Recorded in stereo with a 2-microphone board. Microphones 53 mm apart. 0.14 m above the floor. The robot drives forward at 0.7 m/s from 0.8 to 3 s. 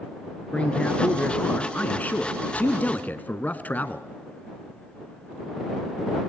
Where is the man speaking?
25° left (ahead or behind), 1.8 m; by 4.1 s 35° left (ahead or behind), 1.4 m.